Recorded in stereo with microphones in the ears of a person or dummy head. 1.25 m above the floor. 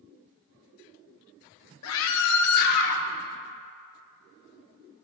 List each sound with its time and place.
1.8 s a scream: 65° left (ahead or behind), 0.8 m; by 3.0 s 40° left (ahead or behind), 1.6 m